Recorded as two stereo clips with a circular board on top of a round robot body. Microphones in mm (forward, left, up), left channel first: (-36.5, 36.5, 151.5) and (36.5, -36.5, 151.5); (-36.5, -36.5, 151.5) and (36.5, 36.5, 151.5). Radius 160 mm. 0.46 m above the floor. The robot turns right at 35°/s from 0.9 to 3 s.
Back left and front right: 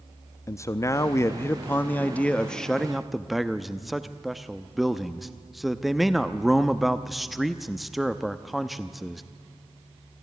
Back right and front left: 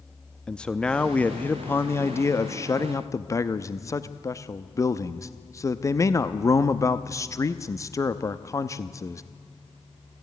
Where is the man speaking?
155° left, 0.8 m; by 9.2 s 135° right, 0.8 m.